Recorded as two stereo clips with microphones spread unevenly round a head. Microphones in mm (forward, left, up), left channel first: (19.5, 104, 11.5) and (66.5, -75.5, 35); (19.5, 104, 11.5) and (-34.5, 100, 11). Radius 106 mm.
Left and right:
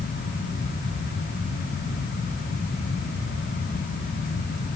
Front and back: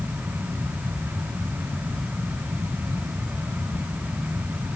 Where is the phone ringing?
No phone ringing in this recording.